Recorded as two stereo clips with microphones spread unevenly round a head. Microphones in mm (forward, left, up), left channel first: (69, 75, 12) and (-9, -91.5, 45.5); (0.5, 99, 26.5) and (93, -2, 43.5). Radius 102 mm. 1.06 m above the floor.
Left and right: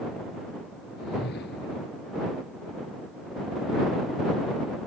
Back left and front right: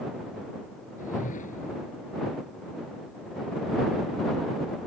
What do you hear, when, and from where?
1.0 s a whoosh: 105° left